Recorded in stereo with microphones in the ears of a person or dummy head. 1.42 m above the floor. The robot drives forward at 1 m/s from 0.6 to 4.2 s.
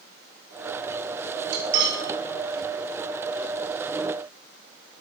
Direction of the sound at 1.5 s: 60° right (ahead or behind).